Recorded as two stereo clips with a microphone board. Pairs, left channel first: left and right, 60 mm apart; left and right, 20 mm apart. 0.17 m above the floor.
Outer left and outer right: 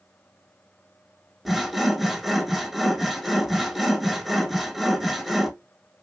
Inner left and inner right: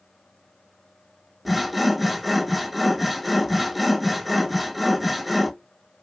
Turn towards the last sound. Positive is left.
turn(degrees=0)  # may be behind; listen again after turning